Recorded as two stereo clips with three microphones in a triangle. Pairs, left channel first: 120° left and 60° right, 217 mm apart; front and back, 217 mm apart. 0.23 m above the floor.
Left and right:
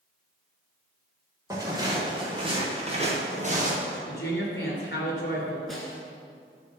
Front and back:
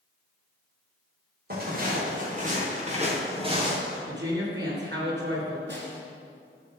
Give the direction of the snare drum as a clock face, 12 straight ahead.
5 o'clock.